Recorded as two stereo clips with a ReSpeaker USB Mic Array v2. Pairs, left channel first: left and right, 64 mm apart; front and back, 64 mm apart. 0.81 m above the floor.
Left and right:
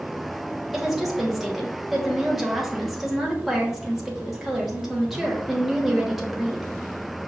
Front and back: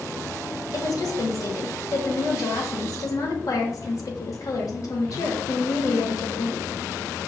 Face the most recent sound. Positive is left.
turn(degrees=-5)